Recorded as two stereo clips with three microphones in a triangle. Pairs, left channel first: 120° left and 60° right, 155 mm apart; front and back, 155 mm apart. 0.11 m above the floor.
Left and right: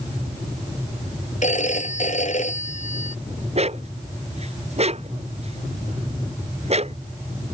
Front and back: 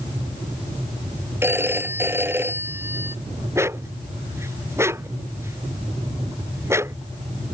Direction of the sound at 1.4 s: 110° left.